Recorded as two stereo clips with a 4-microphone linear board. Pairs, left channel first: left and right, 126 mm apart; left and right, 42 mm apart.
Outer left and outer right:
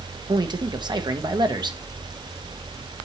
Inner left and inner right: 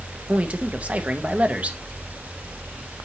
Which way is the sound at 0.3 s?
35° right (ahead or behind).